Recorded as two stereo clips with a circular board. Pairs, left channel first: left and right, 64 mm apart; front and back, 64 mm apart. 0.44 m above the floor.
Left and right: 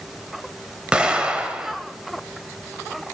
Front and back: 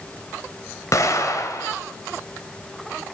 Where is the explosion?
15° right, 1.6 m.